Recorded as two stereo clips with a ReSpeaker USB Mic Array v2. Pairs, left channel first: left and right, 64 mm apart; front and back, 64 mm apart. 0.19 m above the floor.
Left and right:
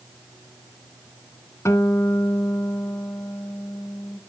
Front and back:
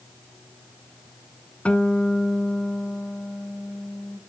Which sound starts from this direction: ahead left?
A guitar, at 1.6 s.